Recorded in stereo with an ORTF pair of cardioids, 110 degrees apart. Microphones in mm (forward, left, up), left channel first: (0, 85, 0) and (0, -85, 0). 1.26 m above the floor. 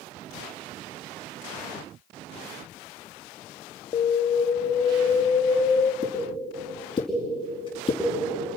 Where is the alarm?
30° left, 1.4 m.